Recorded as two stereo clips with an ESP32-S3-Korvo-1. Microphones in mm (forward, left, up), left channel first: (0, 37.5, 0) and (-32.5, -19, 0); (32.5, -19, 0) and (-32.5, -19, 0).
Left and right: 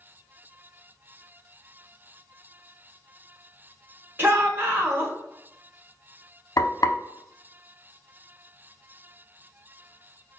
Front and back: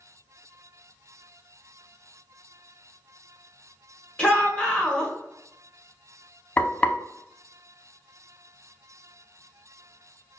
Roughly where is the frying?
Ahead left.